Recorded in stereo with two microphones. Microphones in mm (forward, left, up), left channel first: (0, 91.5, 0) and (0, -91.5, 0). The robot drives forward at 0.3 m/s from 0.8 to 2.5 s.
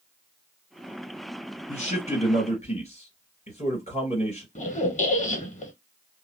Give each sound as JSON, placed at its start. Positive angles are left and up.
{"t": 1.7, "sound": "a man speaking", "side_deg": 40, "distance_m": 2.0}
{"t": 4.5, "sound": "a squeak", "side_deg": 45, "distance_m": 0.6}